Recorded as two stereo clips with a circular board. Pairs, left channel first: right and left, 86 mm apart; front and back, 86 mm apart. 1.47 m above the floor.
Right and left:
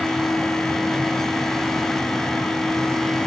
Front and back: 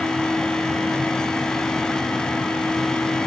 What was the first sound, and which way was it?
Only background noise.